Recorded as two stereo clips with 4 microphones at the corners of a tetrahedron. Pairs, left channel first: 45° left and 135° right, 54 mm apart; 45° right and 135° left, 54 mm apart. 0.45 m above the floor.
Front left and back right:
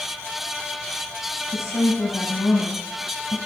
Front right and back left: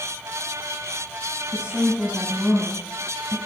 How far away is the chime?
I don't hear a chime.